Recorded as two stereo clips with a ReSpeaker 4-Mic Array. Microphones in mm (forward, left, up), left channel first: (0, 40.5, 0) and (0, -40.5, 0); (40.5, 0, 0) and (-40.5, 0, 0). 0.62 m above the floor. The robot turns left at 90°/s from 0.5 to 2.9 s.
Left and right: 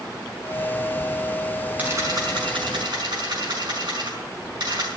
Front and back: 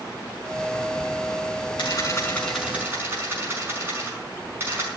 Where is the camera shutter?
20° right, 5 m; by 4.9 s 120° right, 5 m.